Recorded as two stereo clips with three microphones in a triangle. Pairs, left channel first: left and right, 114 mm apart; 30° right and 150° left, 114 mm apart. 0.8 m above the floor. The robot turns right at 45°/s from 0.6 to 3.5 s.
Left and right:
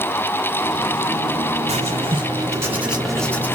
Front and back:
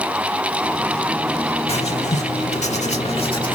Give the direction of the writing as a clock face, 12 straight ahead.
2 o'clock.